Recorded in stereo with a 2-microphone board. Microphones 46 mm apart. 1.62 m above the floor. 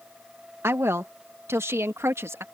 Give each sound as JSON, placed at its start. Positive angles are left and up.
{"t": 0.6, "sound": "a woman speaking", "side_deg": -70}